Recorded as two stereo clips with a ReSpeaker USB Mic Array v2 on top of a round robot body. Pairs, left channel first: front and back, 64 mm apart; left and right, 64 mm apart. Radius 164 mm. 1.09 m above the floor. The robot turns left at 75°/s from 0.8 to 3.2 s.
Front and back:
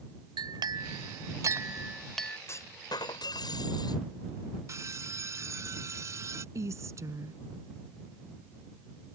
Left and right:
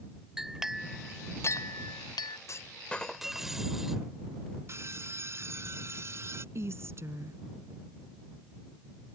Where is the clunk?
50° left; by 4.0 s 5° right.